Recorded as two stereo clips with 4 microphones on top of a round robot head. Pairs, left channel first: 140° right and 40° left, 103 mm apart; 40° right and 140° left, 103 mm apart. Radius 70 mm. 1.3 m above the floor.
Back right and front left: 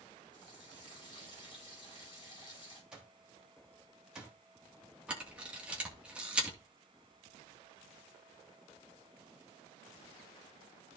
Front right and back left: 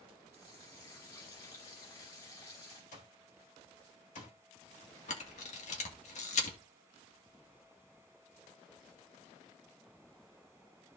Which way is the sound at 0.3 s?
90° right.